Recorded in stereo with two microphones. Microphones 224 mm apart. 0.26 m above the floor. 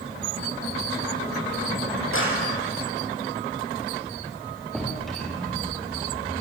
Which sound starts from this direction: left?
A clap, at 2.1 s.